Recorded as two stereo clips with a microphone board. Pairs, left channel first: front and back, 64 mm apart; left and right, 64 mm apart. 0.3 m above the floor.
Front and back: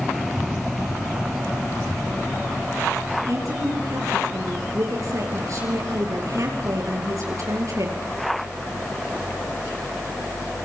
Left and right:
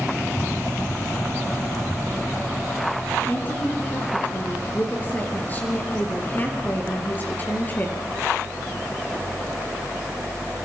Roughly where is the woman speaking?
Behind left.